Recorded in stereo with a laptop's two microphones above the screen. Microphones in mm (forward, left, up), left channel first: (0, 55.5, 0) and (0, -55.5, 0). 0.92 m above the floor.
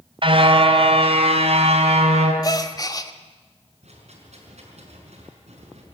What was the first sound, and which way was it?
A car horn, 55° right (ahead or behind).